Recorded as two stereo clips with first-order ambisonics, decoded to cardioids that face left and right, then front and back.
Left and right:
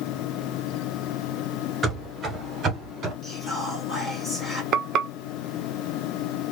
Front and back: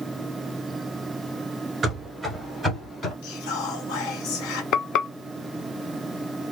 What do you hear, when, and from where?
1.8 s running footsteps: 135° right, 1.3 m; by 3.1 s 50° right, 1.6 m
3.2 s whispering: 10° left, 1.5 m
4.7 s frying: 45° right, 0.6 m